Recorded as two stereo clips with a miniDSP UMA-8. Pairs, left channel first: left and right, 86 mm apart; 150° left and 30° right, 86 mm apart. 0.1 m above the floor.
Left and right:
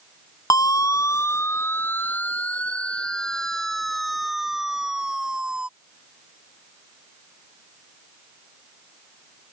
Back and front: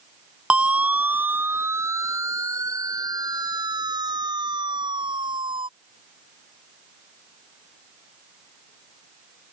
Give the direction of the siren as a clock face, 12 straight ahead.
10 o'clock.